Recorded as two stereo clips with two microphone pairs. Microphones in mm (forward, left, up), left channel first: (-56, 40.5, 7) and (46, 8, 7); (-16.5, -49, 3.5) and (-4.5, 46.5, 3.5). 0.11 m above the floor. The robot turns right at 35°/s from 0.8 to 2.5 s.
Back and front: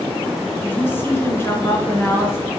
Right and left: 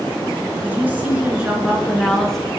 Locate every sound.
0.6 s a woman speaking: 125° left, 1.6 m; by 2.5 s straight behind, 1.6 m